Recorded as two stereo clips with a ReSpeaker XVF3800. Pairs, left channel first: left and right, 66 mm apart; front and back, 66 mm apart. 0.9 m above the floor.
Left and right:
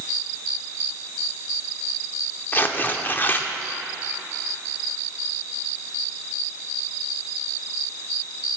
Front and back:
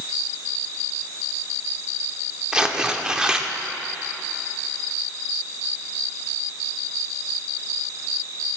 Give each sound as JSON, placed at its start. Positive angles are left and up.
{"t": 2.5, "sound": "tearing paper", "azimuth_deg": 115, "distance_m": 0.5}